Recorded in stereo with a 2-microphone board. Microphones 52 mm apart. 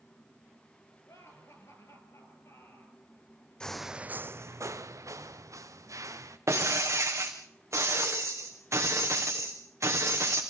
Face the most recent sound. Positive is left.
turn(degrees=-60)  # may be behind; listen again after turning